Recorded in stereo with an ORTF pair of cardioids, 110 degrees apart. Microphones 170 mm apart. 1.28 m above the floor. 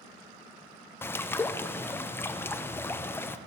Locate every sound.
1.0 s a bird: 15° left, 0.5 m